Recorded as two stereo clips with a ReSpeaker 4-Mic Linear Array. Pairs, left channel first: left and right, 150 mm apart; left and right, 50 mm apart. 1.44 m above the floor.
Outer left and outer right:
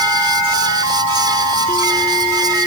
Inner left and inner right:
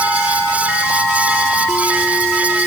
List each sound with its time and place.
Only background noise.